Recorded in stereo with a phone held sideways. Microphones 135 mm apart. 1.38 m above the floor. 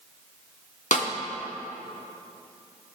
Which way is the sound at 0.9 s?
65° left (ahead or behind).